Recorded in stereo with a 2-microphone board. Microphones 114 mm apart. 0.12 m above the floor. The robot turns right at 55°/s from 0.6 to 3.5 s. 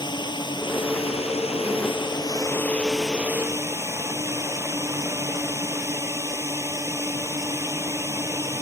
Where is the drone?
50° left; by 8.6 s 150° right.